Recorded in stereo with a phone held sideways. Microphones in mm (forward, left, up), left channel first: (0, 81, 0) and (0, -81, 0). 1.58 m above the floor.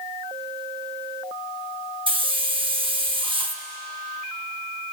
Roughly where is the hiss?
Right.